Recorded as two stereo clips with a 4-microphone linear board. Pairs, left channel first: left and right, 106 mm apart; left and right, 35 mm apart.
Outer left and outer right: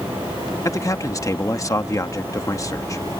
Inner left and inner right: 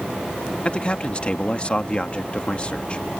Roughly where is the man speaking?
Left.